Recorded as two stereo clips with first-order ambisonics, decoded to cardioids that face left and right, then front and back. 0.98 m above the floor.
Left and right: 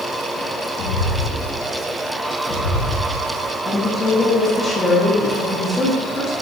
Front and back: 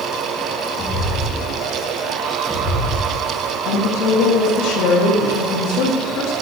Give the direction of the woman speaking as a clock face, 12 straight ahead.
12 o'clock.